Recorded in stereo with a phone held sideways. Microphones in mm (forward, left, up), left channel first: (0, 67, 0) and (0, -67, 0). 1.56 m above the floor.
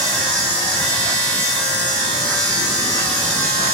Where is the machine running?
10° left (ahead or behind), 1.4 m.